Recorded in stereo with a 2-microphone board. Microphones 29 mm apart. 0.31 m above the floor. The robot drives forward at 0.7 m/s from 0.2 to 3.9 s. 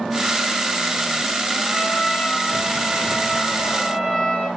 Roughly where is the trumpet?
Left.